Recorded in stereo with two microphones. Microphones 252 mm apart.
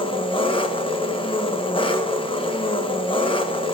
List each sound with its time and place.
0.0 s an engine running: 20° left (ahead or behind), 0.8 m